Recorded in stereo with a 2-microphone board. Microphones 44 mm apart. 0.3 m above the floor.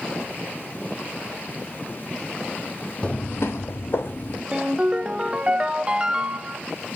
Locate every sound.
3.0 s footsteps: 25° left (ahead or behind), 0.7 m; by 4.4 s 50° left (ahead or behind), 1.5 m
4.5 s a ringtone: 25° right (ahead or behind), 0.6 m